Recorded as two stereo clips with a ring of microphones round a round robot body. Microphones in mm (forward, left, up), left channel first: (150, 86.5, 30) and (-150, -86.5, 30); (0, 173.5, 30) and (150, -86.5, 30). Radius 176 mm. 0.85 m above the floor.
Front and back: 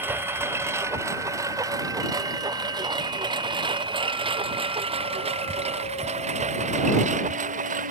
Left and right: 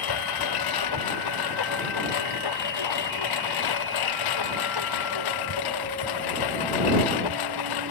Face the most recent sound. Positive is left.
turn(degrees=140)